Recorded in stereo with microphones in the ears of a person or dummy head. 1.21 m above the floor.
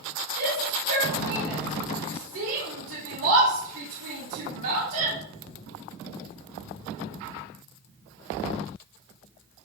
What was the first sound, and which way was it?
A shout, 60° right (ahead or behind).